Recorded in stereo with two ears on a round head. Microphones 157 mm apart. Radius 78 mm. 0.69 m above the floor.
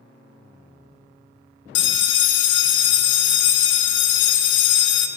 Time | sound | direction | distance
1.8 | a bell | 70° left (ahead or behind) | 0.5 m